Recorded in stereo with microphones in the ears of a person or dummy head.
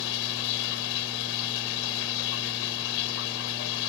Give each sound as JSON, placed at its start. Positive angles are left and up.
{"t": 0.0, "sound": "running water", "side_deg": 75}